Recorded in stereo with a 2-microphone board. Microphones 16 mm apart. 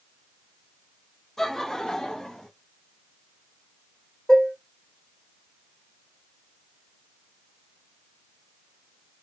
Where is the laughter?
25° left (ahead or behind), 0.8 m; by 2.5 s 55° left (ahead or behind), 1.1 m.